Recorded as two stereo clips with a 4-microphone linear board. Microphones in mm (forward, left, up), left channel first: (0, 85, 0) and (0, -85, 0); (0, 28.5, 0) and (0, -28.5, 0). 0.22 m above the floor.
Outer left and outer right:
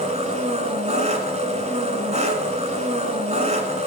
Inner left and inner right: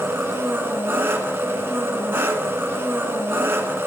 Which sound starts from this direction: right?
An engine running, at 0.0 s.